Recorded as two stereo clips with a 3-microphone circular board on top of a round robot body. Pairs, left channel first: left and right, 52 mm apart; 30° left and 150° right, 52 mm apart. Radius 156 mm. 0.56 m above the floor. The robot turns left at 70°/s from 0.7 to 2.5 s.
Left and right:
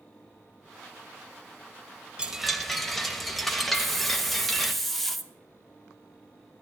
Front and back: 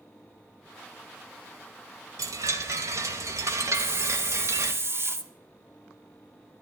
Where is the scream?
No scream in this recording.